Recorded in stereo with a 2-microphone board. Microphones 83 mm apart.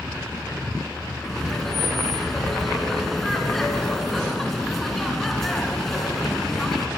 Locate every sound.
1.2 s laughter: centre (ahead or behind), 1.4 m